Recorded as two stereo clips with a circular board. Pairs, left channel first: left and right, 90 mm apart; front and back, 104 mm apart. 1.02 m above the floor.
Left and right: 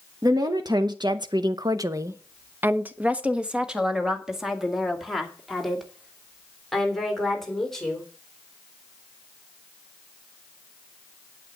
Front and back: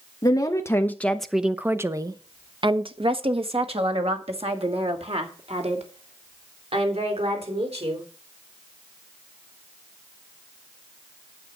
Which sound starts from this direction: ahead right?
A woman speaking, at 0.2 s.